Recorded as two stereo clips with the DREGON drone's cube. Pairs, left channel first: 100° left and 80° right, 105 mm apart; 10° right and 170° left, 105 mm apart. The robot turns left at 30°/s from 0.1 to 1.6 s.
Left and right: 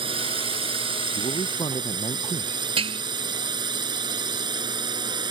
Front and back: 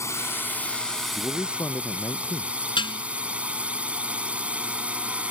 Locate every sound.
0.0 s a drone: 70° right; by 5.3 s 115° right
1.1 s a man speaking: 70° left; by 2.5 s 55° left
2.8 s dishes clattering: 50° right